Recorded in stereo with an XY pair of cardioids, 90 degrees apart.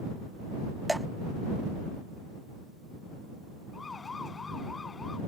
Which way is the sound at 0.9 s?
10° right.